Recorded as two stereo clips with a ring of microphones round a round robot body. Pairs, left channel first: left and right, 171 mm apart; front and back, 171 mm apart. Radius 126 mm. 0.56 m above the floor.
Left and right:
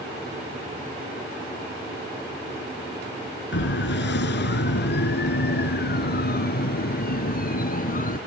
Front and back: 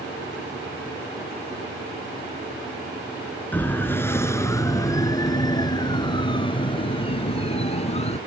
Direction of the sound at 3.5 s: 80° left.